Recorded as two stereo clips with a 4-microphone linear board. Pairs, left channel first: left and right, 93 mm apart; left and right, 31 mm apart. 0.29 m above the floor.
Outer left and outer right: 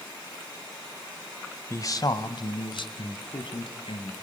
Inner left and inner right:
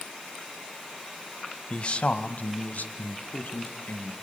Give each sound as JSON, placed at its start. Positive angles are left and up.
{"t": 1.7, "sound": "a man speaking", "side_deg": 30, "distance_m": 1.2}